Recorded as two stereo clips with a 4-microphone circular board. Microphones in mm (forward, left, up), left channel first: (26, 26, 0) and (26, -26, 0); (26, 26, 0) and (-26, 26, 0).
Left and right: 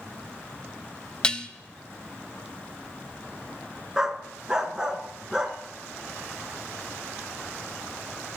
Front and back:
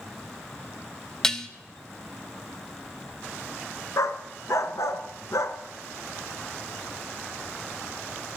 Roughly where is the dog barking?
Ahead.